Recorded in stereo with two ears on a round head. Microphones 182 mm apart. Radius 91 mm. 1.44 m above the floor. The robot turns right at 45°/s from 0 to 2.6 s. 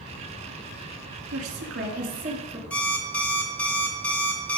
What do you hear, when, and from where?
1.3 s a woman speaking: 80° right, 2.5 m; by 2.6 s 25° right, 2.5 m
2.7 s an alarm clock: 10° left (ahead or behind), 1.6 m